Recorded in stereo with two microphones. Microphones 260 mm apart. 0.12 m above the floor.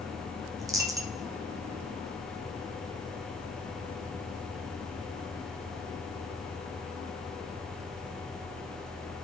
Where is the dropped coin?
15° right (ahead or behind), 0.8 m.